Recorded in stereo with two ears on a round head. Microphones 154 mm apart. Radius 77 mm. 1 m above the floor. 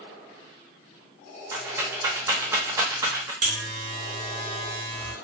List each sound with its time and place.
1.5 s a rattle: 15° right (ahead or behind), 0.6 m
3.4 s a buzzer: 45° right (ahead or behind), 1.1 m